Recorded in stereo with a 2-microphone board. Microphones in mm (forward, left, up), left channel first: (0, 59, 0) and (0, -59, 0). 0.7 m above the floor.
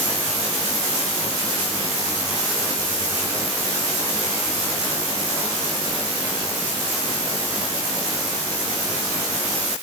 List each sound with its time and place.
Only background noise.